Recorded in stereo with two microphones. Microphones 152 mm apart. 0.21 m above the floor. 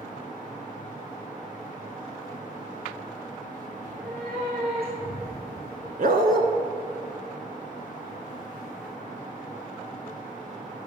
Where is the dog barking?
70° right (ahead or behind), 0.7 m.